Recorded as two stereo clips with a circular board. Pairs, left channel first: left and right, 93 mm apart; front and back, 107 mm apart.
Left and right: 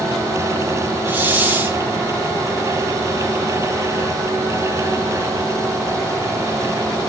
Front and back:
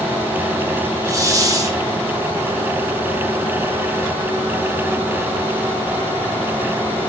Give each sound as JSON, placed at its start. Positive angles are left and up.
{"t": 1.1, "sound": "a hiss", "azimuth_deg": -145, "distance_m": 1.3}